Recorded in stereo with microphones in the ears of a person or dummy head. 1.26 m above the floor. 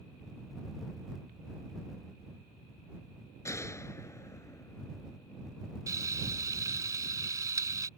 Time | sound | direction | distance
3.5 | a gunshot | 15° left (ahead or behind) | ?
5.9 | frying | 20° right (ahead or behind) | ?